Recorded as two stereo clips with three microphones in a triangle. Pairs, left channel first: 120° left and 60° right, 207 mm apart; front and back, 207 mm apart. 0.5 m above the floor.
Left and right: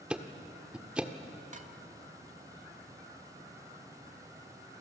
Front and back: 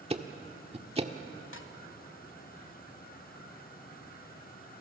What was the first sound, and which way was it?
Ticking, 140° right.